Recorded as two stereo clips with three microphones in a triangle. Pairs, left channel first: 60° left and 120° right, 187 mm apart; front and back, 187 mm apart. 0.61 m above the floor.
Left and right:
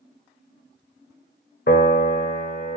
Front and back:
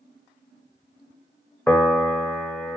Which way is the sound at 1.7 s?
80° left.